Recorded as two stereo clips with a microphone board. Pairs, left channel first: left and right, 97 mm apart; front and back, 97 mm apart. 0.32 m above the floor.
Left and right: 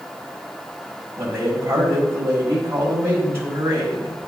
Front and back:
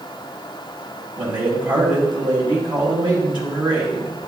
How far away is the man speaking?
About 2.5 m.